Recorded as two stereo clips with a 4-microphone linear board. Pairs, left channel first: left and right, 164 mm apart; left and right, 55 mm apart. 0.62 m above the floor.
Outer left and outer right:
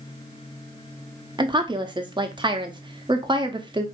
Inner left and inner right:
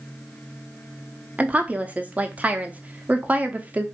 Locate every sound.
1.4 s a woman speaking: 30° right (ahead or behind), 0.8 m